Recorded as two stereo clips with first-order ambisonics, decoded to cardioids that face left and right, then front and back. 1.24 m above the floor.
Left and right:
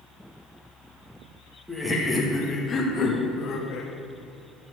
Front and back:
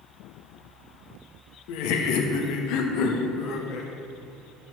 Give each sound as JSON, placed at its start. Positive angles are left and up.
{"t": 1.7, "sound": "laughter", "azimuth_deg": -5, "distance_m": 1.7}